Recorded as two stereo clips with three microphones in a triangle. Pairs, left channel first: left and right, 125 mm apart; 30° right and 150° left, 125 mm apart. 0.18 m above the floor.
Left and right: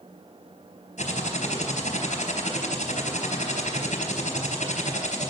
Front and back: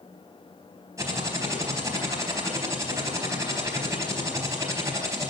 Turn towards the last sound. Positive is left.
turn(degrees=90)